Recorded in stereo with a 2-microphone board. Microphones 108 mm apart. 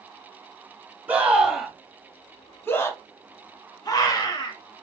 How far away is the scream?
About 1.1 m.